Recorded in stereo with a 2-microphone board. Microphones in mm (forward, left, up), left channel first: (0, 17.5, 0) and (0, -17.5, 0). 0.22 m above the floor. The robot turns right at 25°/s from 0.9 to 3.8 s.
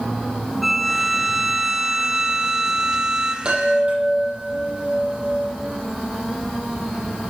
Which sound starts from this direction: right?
A chime, at 3.5 s.